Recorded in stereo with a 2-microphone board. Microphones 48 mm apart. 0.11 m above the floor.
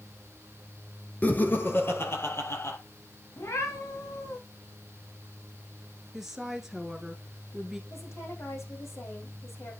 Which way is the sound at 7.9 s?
75° left (ahead or behind).